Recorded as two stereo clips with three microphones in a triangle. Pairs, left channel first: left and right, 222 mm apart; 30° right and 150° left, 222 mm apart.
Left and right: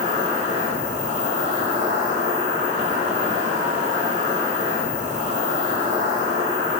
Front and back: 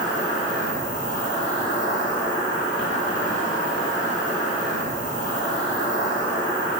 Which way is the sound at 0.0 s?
35° right.